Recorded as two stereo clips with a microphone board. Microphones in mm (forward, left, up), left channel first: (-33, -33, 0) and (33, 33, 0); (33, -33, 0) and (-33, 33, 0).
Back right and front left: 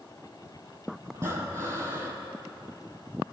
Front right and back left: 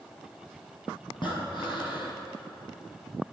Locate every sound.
1.1 s breathing: 10° right, 3.5 m